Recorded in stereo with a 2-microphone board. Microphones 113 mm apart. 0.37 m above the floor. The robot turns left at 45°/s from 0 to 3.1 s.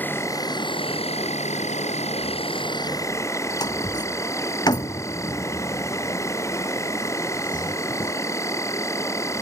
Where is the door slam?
40° left (ahead or behind).